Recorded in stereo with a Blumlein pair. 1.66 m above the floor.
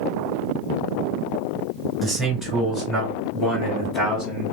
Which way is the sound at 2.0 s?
10° right.